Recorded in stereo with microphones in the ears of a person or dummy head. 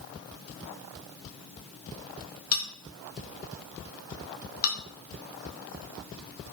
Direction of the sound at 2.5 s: 80° left.